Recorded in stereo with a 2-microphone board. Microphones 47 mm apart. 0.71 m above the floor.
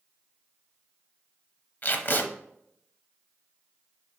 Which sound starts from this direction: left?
Tape being pulled, at 1.8 s.